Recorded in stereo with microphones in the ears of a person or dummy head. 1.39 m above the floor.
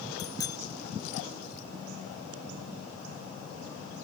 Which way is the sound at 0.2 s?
20° left (ahead or behind).